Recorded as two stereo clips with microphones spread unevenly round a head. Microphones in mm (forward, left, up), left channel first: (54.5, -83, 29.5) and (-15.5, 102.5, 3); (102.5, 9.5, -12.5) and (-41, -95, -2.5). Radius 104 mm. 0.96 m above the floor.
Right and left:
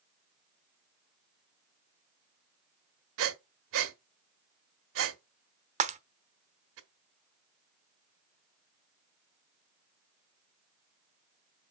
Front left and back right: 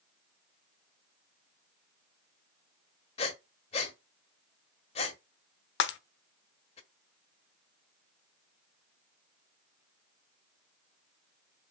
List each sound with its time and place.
3.2 s breathing: 95° left, 1.1 m
5.8 s breaking glass: 55° left, 1.0 m